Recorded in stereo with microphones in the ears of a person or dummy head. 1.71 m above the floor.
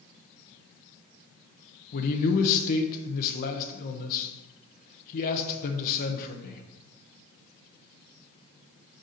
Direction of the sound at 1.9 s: 45° left (ahead or behind).